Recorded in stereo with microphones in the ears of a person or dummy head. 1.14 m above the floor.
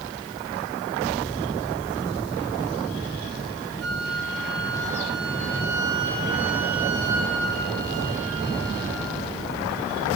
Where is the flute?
65° right (ahead or behind), 3.5 m.